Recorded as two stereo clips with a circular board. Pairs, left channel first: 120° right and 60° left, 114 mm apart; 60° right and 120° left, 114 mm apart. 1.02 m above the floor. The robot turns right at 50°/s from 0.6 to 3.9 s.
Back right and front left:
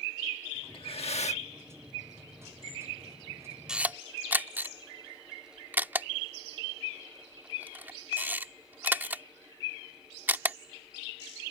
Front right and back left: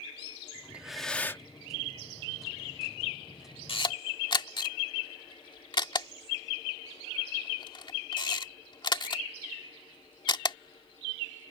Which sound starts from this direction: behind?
Breathing, at 0.7 s.